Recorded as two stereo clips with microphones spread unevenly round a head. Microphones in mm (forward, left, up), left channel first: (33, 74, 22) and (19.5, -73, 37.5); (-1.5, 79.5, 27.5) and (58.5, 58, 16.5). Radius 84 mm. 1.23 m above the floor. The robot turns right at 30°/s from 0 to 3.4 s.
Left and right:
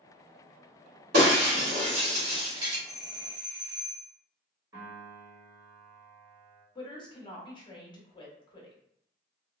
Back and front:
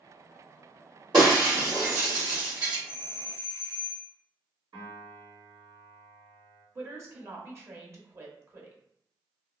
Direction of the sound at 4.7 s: 35° right.